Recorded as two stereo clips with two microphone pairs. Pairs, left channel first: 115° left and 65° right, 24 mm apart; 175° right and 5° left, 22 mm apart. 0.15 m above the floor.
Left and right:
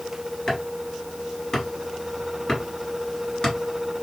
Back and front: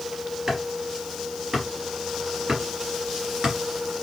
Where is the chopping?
50° left, 2 m.